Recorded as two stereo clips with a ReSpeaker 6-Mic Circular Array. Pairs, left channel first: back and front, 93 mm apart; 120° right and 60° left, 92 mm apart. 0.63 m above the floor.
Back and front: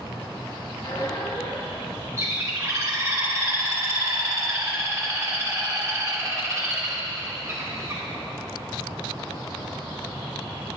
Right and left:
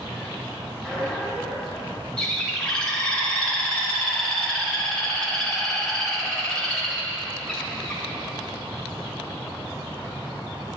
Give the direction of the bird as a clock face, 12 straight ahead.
1 o'clock.